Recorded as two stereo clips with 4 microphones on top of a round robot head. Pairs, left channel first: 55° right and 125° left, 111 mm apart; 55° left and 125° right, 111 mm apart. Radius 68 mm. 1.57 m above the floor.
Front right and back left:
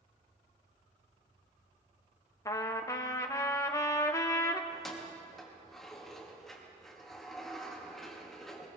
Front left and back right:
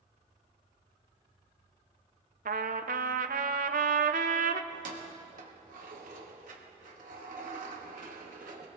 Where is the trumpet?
115° right, 0.6 m.